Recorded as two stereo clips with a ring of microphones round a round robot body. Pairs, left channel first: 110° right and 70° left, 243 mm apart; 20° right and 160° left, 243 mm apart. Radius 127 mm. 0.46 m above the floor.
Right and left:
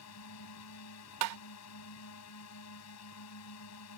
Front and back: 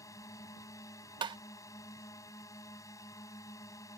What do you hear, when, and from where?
0.0 s a drone: 100° right
1.2 s tapping: 85° left